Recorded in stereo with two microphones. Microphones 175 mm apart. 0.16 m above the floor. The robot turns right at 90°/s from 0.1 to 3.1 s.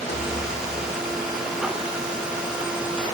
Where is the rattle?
80° left, 6.5 m; by 0.4 s 50° left (ahead or behind), 6.5 m.